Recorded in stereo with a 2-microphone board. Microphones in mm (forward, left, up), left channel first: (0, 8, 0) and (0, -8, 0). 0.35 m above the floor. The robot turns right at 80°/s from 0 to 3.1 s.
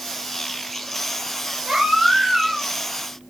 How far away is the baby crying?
About 4.5 m.